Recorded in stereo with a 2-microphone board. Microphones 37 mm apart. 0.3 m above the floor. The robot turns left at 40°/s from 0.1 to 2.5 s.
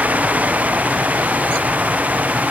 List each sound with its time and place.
Only background noise.